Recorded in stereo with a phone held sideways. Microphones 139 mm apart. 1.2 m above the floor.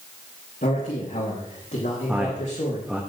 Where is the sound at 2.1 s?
5° right (ahead or behind), 1.2 m.